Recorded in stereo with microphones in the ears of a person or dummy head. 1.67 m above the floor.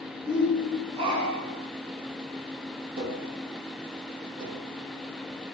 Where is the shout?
25° right (ahead or behind), 5.5 m; by 1.7 s 40° right (ahead or behind), 5.5 m.